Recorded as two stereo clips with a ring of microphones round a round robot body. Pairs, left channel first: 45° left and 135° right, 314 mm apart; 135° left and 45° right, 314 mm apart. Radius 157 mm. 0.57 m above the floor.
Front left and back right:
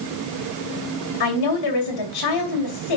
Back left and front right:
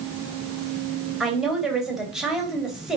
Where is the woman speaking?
45° left, 2.5 m.